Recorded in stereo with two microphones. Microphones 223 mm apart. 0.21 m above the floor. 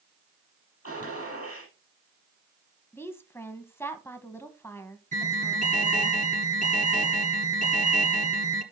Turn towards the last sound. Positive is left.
turn(degrees=-35)  # may be behind; listen again after turning